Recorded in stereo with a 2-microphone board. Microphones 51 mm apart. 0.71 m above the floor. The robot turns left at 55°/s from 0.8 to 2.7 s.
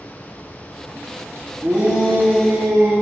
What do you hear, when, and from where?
1.6 s a shout: 110° right, 1.0 m; by 2.9 s 170° right, 1.0 m